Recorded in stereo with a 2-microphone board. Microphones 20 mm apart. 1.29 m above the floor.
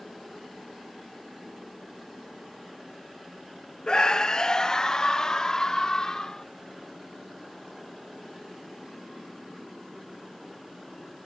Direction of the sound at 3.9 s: 45° left (ahead or behind).